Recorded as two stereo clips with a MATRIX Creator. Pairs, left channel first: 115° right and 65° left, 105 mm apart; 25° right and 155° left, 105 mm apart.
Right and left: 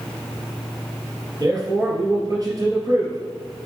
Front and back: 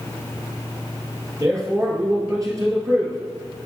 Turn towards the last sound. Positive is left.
turn(degrees=110)